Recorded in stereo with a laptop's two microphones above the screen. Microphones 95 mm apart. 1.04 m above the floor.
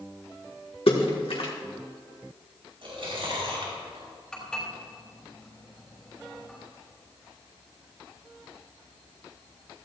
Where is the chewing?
65° right (ahead or behind), 4.5 m.